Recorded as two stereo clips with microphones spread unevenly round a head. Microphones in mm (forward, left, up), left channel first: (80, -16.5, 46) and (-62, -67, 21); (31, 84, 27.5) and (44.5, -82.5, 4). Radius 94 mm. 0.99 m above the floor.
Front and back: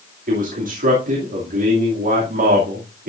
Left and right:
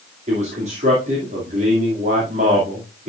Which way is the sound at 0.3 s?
140° right.